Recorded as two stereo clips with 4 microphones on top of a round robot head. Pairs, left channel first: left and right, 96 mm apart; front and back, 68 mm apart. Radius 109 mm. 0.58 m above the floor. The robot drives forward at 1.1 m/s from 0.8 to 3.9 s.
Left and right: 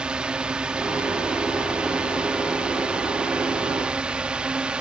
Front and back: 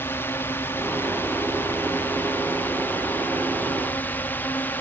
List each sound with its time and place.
0.0 s a drone: 20° right